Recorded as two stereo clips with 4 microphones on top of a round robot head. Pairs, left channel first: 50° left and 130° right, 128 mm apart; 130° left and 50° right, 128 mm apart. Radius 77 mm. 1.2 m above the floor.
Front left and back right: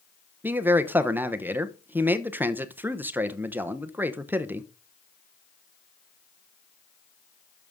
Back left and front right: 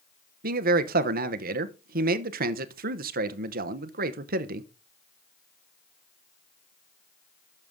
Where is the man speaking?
50° right, 0.9 m.